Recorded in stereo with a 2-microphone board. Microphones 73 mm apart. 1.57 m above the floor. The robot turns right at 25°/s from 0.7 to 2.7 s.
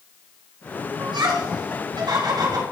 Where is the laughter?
80° right, 3.5 m; by 2.6 s 60° right (ahead or behind), 3.5 m.